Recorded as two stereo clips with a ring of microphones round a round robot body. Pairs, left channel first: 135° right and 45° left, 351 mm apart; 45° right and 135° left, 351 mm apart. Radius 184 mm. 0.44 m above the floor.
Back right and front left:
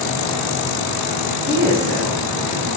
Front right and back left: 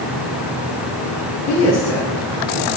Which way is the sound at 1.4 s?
Straight ahead.